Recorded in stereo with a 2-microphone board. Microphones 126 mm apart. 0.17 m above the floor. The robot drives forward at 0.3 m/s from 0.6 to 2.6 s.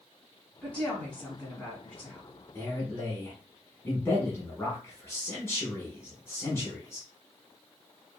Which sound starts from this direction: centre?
A woman speaking, at 0.6 s.